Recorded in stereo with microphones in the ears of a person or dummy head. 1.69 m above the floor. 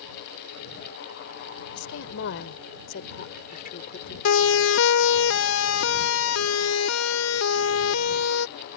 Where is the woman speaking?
70° left (ahead or behind); by 4.2 s 45° left (ahead or behind).